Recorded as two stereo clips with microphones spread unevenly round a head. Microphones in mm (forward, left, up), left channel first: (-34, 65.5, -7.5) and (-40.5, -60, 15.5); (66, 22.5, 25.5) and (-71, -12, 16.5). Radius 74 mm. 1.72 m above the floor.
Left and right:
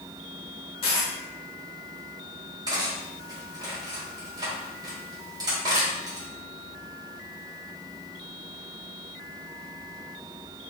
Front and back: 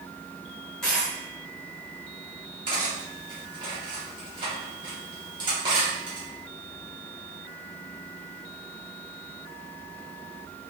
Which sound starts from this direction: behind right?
Cutlery clinking, at 2.7 s.